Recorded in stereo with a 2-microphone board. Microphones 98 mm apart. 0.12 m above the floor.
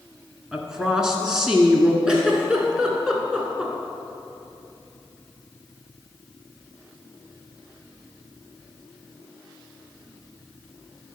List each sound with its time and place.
0.5 s a woman speaking: 5° right (ahead or behind), 1.1 m
2.1 s a giggle: 10° right (ahead or behind), 1.4 m